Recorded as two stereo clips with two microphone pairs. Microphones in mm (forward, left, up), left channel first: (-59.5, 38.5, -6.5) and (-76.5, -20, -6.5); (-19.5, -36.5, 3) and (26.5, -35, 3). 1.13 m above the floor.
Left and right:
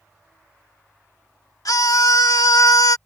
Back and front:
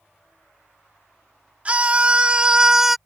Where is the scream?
65° left; by 3.0 s 90° left.